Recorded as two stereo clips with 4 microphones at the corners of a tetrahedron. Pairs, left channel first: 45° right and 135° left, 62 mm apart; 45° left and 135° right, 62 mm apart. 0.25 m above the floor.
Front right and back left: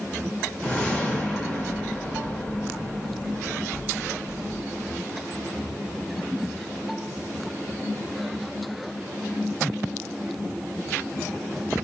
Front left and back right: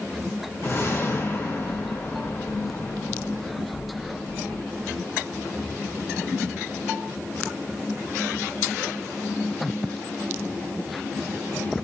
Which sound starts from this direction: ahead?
A whoosh, at 0.6 s.